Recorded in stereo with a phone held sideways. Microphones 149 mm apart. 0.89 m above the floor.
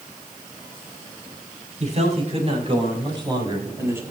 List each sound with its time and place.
1.8 s a man speaking: 50° right (ahead or behind), 6 m; by 4.0 s 15° right (ahead or behind), 4.5 m